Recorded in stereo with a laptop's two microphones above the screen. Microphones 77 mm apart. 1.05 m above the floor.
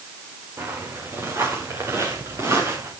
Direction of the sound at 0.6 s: 35° right (ahead or behind).